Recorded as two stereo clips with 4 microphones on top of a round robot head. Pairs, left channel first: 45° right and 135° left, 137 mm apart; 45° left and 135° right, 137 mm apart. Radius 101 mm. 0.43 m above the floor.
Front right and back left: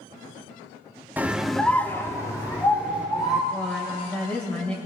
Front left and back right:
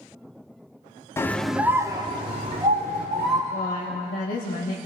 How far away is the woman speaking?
About 2 m.